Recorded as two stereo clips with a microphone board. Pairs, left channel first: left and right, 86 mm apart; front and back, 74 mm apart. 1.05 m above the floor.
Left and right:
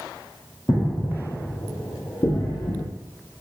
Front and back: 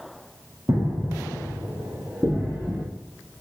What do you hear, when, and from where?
0.7 s footsteps: 145° left, 3.5 m; by 2.9 s 100° left, 3.5 m